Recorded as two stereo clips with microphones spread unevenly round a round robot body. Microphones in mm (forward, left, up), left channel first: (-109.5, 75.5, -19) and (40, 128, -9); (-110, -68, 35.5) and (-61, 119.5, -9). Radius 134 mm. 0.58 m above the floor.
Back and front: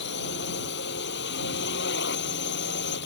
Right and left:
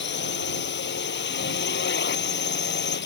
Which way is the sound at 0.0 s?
130° right.